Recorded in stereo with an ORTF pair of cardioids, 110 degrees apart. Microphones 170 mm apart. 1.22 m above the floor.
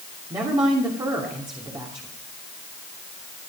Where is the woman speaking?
25° right, 3 m.